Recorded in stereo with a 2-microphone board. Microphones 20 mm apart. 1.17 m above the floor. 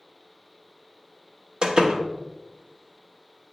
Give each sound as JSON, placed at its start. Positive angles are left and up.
{"t": 1.6, "sound": "a door slam", "side_deg": -45, "distance_m": 1.0}